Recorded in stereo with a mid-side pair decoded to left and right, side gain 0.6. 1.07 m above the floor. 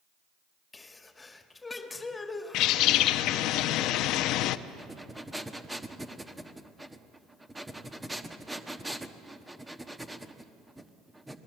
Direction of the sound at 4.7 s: 10° right.